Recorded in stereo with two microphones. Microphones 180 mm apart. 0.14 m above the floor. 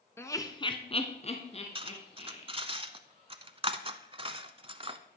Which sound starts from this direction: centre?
Laughter, at 0.2 s.